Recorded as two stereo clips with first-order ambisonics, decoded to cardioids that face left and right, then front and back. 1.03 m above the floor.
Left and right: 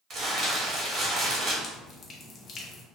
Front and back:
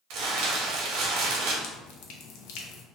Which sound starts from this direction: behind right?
Crumpling, at 0.1 s.